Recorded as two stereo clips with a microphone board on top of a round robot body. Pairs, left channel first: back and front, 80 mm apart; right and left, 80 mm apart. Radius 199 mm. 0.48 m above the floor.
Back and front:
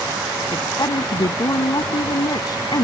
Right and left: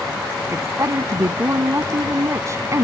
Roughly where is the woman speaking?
Behind left.